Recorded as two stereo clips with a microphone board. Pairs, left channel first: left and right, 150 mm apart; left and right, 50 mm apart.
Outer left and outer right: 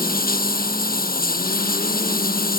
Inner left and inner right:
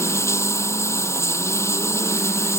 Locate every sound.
0.0 s running water: 75° left (ahead or behind)